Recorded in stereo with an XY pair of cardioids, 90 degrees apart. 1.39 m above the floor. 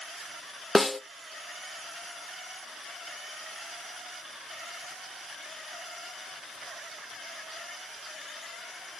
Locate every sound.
0.8 s a snare drum: 20° left, 0.7 m